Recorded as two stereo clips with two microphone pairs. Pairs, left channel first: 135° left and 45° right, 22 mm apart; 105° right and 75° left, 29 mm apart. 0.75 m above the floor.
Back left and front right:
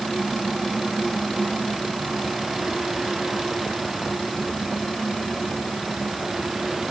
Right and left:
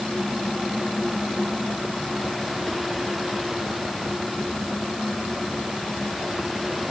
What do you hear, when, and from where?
Only background noise.